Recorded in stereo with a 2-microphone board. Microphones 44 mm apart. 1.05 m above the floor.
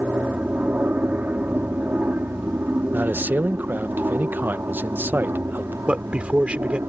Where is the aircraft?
35° right (ahead or behind); by 6.9 s 60° right (ahead or behind).